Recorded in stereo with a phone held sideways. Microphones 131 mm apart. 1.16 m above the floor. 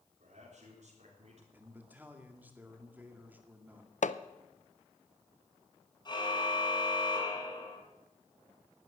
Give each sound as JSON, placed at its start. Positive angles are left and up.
{"t": 0.2, "sound": "a man speaking", "side_deg": -65, "distance_m": 4.0}
{"t": 1.5, "sound": "a man speaking", "side_deg": -15, "distance_m": 2.0}
{"t": 4.0, "sound": "hammering", "side_deg": 70, "distance_m": 0.6}
{"t": 6.0, "sound": "a car horn", "side_deg": 35, "distance_m": 5.0}